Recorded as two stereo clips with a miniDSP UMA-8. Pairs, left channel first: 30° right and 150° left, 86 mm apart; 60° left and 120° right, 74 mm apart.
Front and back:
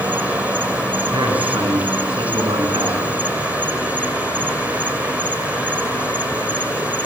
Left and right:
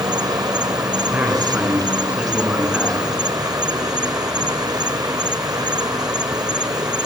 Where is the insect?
140° right, 0.8 m.